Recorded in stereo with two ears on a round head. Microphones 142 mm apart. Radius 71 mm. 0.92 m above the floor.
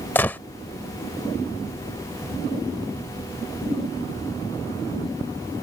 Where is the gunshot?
15° left (ahead or behind).